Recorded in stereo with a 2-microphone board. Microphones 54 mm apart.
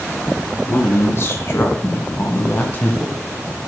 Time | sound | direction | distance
0.7 | a man speaking | 50° left (ahead or behind) | 2.5 m